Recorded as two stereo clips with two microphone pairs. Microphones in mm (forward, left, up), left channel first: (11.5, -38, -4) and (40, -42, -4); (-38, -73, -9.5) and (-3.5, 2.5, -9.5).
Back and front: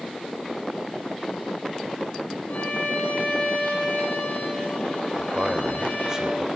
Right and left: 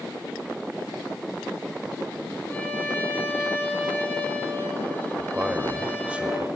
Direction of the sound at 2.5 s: Straight behind.